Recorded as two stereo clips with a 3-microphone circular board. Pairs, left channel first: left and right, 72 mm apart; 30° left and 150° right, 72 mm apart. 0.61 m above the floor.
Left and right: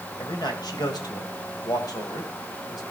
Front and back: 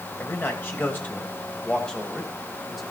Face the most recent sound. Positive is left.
turn(degrees=120)